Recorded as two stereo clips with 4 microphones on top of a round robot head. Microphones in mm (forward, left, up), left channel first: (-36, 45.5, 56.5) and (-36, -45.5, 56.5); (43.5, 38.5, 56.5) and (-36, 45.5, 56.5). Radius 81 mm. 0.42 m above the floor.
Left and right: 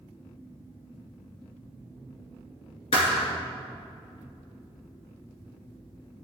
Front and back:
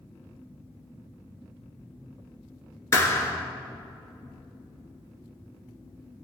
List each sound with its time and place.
2.9 s a thud: 50° left, 1.9 m